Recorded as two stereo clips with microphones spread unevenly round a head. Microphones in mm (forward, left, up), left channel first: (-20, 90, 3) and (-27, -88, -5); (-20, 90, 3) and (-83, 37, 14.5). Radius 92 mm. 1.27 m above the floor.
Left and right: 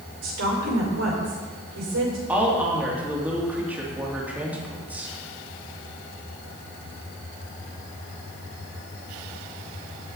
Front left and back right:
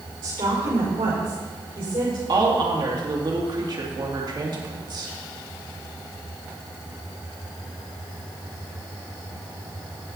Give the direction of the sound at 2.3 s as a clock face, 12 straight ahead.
6 o'clock.